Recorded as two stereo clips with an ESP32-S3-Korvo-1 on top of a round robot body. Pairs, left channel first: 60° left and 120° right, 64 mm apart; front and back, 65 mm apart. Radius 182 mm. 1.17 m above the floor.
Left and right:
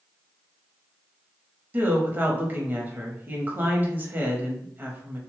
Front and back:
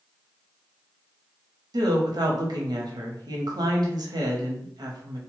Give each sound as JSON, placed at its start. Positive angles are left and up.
{"t": 1.7, "sound": "a woman speaking", "azimuth_deg": 180, "distance_m": 0.8}